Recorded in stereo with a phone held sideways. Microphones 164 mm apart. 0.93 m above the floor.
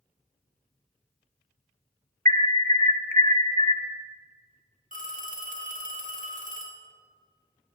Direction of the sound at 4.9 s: 55° right (ahead or behind).